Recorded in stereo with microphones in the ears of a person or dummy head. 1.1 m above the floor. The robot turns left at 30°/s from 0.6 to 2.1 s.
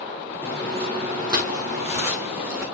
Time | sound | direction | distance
0.4 | footsteps | 20° right (ahead or behind) | 1.5 m